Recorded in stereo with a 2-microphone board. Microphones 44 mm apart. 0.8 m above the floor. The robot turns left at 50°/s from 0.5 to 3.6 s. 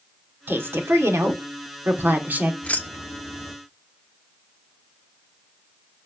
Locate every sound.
0.5 s a woman speaking: 50° right, 2.0 m; by 2.5 s 155° right, 2.0 m
2.6 s keys jangling: 30° left (ahead or behind), 1.1 m; by 3.5 s 75° left (ahead or behind), 1.1 m